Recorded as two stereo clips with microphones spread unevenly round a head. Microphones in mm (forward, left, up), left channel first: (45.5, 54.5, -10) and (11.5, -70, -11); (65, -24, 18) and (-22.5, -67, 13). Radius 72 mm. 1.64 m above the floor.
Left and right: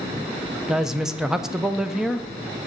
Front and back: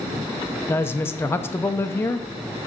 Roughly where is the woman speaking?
Ahead.